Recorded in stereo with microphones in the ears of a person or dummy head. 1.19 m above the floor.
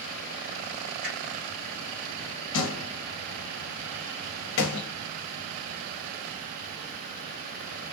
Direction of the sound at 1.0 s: 65° right (ahead or behind).